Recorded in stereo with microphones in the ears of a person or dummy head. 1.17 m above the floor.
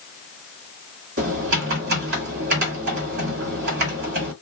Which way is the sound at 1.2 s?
55° right (ahead or behind).